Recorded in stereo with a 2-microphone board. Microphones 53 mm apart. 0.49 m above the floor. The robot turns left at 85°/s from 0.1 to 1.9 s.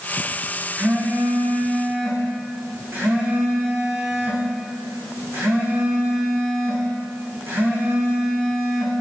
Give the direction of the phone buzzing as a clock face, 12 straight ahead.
1 o'clock.